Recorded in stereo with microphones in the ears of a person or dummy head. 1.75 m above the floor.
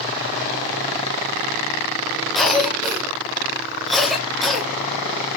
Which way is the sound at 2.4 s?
Centre (ahead or behind).